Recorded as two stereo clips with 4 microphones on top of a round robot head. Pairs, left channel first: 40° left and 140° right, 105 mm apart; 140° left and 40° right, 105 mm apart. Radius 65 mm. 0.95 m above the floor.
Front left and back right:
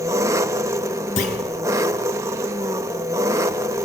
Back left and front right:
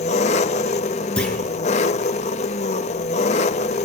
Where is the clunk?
60° left, 4 m.